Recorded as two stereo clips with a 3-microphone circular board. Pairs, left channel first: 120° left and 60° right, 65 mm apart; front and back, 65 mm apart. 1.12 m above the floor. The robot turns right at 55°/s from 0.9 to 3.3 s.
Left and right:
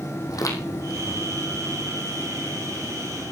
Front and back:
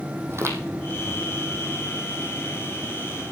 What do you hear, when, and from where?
0.3 s footsteps: 135° left, 3 m; by 1.2 s 155° left, 3 m